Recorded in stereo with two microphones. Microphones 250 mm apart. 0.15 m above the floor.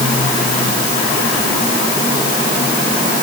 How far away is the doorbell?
No doorbell in this recording.